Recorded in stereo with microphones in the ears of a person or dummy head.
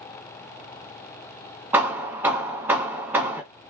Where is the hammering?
15° right (ahead or behind), 1.0 m.